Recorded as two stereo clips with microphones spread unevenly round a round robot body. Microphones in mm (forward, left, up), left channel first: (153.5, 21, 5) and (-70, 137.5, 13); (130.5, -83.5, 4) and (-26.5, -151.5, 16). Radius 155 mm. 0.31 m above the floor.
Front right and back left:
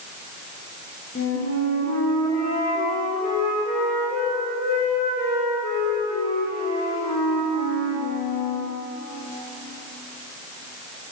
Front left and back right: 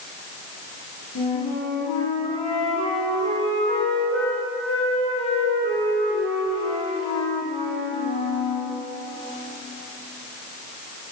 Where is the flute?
30° left, 3.5 m.